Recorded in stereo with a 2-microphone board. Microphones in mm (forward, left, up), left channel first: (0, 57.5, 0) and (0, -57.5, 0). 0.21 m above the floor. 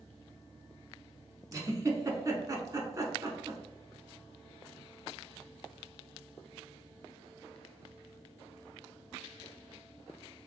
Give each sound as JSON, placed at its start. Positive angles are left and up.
{"t": 1.5, "sound": "a giggle", "side_deg": -30, "distance_m": 0.7}